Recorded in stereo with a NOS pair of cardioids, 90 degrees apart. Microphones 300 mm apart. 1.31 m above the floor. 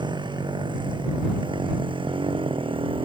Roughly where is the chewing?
No chewing in this recording.